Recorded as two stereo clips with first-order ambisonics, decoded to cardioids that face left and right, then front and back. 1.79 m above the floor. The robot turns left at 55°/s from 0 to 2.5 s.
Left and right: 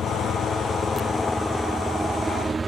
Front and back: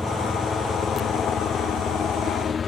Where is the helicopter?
80° left; by 2.7 s 30° right.